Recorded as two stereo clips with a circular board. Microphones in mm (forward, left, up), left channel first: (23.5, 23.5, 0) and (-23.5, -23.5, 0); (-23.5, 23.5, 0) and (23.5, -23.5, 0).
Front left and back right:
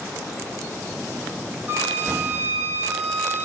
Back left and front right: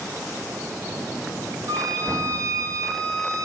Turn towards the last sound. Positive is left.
turn(degrees=-75)